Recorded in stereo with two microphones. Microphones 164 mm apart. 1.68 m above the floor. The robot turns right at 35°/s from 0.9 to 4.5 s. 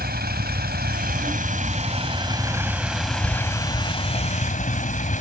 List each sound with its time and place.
0.0 s a vehicle: 75° right; by 5.2 s 50° left